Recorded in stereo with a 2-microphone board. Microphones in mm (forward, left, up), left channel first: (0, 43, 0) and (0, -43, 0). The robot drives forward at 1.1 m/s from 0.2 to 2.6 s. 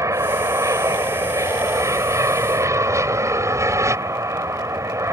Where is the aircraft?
35° right (ahead or behind).